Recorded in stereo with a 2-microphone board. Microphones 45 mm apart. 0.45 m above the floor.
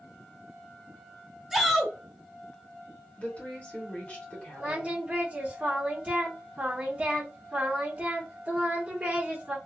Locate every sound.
1.5 s a shout: 5° right (ahead or behind), 1.1 m
3.2 s a woman speaking: 30° left (ahead or behind), 1.8 m
4.6 s singing: 30° right (ahead or behind), 1.4 m